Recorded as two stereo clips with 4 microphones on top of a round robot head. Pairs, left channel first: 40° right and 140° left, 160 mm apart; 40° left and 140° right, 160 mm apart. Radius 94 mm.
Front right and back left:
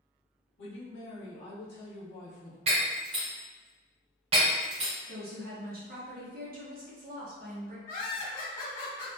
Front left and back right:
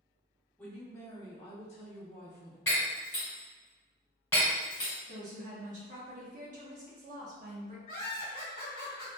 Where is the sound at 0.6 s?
45° right, 1.4 m; by 2.6 s 10° left, 1.2 m.